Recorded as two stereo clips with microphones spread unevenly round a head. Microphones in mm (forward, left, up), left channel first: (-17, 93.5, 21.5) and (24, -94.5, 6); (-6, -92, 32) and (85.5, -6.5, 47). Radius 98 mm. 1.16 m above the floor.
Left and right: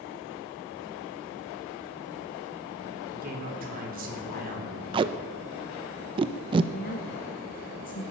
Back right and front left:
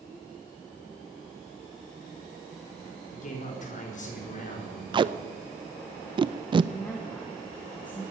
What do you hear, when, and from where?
3.1 s a man speaking: 125° right, 4 m
4.9 s tape being pulled: 10° right, 0.6 m
6.7 s a woman speaking: 150° left, 1.0 m